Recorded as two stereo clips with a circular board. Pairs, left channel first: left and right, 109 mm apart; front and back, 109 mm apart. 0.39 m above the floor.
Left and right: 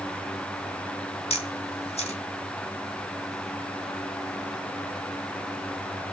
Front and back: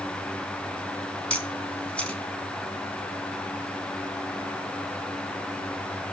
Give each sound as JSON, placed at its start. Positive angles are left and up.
{"t": 1.3, "sound": "a camera shutter", "azimuth_deg": 80, "distance_m": 3.0}